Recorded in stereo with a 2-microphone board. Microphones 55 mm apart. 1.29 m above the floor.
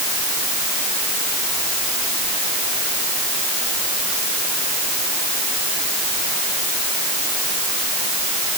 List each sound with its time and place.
Only background noise.